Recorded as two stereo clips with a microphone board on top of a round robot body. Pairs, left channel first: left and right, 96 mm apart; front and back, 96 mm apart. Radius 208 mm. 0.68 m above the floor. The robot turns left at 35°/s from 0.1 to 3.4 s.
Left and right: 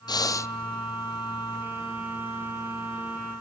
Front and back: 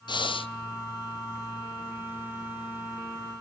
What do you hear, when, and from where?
0.1 s breathing: 40° left, 0.7 m; by 0.5 s 25° left, 0.7 m